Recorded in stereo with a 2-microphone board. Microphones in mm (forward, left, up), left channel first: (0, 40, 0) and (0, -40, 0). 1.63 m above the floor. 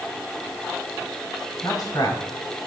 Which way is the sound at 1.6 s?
55° left (ahead or behind).